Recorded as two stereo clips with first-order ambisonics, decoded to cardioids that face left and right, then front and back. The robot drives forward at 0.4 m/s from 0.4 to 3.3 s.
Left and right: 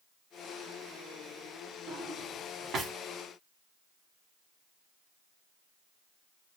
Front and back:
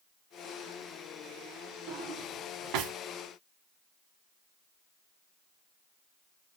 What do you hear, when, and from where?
1.9 s a drawer: 145° right, 0.7 m; by 2.9 s 160° right, 1.1 m